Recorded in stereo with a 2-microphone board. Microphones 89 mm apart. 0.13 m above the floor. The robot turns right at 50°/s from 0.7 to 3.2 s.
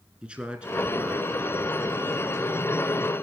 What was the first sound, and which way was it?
A man speaking, 10° right (ahead or behind).